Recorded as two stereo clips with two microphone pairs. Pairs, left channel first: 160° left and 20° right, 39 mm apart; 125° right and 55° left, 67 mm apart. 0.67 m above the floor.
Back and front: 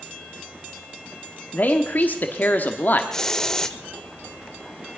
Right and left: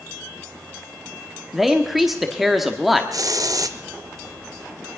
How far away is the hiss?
About 0.7 m.